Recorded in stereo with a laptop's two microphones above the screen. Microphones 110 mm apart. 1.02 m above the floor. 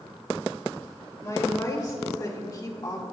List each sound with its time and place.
1.2 s a woman speaking: 35° left (ahead or behind), 2 m